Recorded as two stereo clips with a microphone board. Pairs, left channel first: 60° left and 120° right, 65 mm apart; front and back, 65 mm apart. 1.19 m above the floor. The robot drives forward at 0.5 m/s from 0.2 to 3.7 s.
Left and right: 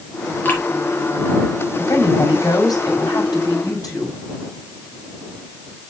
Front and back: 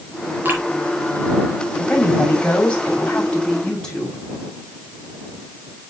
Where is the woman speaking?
70° left, 5.5 m; by 4.2 s 80° left, 5.5 m.